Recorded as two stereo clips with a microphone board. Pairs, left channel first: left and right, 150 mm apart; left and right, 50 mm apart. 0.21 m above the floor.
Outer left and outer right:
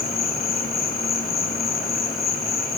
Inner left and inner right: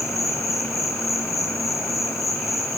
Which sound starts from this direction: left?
An insect, at 0.0 s.